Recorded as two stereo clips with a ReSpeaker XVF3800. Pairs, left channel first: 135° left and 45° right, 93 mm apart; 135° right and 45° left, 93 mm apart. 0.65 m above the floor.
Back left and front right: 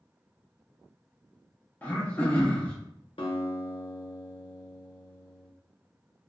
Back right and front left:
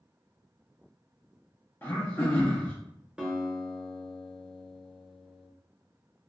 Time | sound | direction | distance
1.8 | throat clearing | 175° right | 0.8 m
3.2 | a guitar | 125° left | 0.7 m